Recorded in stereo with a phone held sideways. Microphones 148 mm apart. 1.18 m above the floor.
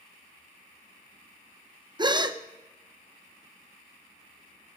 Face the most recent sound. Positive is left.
turn(degrees=-30)  # may be behind; listen again after turning